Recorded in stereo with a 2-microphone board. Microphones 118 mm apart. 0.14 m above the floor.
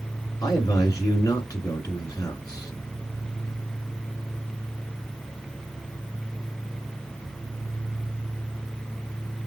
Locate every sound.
0.4 s a man speaking: 30° left (ahead or behind), 2 m